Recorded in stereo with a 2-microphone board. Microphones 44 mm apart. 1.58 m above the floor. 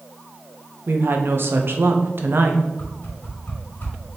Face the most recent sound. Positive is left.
turn(degrees=45)  # may be behind; listen again after turning